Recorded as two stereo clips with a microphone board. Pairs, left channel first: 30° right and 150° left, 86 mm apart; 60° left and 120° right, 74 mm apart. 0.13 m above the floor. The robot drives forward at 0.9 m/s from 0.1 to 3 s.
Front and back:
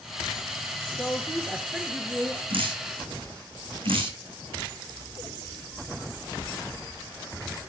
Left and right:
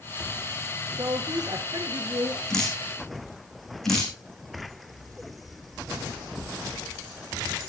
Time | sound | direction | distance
1.0 | a woman speaking | 110° right | 1.8 m
2.5 | dripping | 145° left | 4.5 m